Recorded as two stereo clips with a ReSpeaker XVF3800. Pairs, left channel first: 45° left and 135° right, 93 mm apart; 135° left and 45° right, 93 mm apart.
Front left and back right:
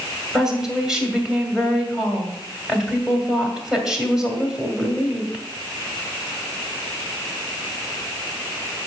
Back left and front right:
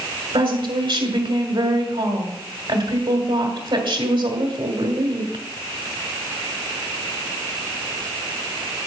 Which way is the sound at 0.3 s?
55° right.